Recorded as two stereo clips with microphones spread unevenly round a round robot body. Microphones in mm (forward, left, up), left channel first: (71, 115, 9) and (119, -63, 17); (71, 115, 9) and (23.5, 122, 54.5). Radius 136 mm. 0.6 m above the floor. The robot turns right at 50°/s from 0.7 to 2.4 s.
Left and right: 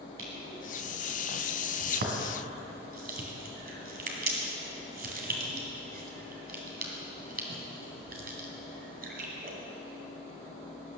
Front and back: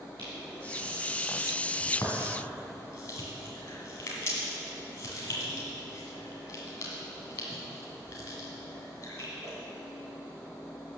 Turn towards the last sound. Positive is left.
turn(degrees=-40)